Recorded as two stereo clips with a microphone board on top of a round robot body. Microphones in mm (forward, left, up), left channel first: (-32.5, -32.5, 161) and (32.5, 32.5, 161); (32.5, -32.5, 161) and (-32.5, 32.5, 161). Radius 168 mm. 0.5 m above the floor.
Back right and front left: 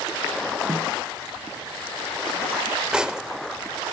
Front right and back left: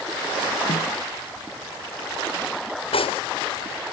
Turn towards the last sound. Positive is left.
turn(degrees=-35)